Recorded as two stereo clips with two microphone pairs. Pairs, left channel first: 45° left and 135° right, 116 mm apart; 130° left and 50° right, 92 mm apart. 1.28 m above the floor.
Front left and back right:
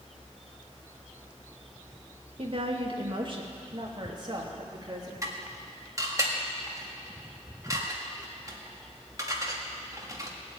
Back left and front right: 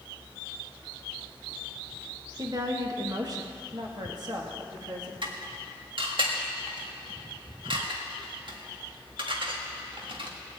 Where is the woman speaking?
100° right, 1.8 m; by 5.1 s 80° right, 3 m.